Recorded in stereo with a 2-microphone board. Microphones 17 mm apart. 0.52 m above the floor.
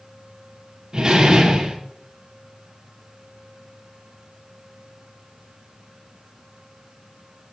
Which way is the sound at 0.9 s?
35° right (ahead or behind).